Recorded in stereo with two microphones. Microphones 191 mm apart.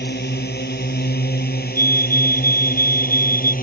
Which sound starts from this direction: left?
A drone, at 0.0 s.